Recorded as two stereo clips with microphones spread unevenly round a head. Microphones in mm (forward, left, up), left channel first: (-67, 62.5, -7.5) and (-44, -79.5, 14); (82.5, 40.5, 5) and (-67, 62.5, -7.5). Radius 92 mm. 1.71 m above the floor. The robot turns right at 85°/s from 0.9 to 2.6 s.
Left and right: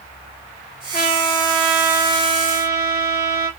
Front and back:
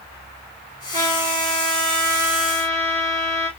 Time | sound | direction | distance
0.9 | a trumpet | 125° left | 1.8 m